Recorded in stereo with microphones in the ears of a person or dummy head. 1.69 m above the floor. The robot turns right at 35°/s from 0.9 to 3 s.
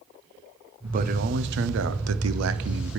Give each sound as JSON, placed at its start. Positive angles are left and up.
{"t": 0.8, "sound": "a man speaking", "azimuth_deg": -140, "distance_m": 0.9}